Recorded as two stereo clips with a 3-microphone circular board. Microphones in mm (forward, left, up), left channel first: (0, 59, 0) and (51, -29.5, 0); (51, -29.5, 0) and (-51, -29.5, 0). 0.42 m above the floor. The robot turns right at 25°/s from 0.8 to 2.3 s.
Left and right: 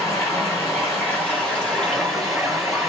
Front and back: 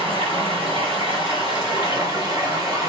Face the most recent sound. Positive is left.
turn(degrees=-145)